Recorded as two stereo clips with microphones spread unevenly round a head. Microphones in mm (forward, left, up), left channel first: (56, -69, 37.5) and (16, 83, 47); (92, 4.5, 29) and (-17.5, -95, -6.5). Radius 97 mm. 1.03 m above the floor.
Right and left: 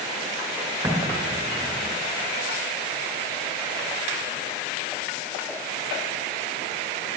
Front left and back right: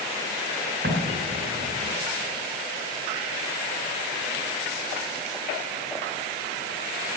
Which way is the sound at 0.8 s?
Straight behind.